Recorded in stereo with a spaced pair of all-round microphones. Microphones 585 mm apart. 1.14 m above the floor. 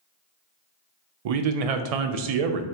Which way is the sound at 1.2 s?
80° right.